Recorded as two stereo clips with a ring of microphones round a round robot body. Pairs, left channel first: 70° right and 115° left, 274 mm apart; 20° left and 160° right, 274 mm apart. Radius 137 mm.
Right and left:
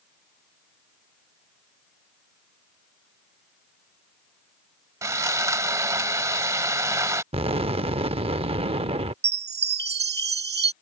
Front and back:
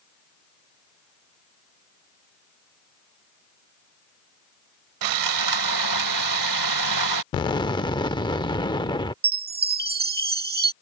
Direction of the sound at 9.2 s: 155° left.